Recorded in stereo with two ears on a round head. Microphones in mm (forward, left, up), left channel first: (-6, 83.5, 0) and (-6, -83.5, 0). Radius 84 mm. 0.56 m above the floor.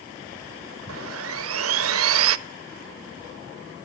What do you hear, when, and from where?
0.9 s sawing: 85° right, 0.8 m